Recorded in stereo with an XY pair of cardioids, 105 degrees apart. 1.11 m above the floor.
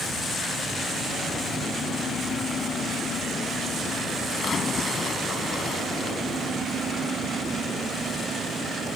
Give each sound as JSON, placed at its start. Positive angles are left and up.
{"t": 4.3, "sound": "a splash", "azimuth_deg": 45}